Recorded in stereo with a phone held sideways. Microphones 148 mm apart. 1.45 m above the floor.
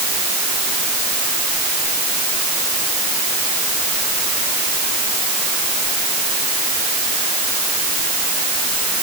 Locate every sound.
Only background noise.